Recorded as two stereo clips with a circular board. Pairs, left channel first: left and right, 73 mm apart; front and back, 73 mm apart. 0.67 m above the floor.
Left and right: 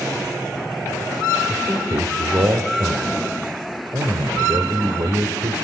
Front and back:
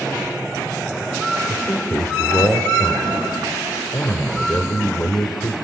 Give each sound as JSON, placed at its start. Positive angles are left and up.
{"t": 1.5, "sound": "a man speaking", "azimuth_deg": -60, "distance_m": 1.9}